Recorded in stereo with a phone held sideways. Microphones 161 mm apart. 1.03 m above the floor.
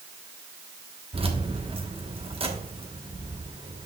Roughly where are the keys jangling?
Right.